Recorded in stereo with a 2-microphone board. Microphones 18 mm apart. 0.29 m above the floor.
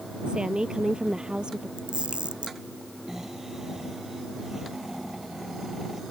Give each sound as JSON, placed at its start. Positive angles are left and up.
{"t": 0.3, "sound": "a woman speaking", "side_deg": -50}
{"t": 1.8, "sound": "a camera shutter", "side_deg": -70}
{"t": 3.1, "sound": "snoring", "side_deg": -25}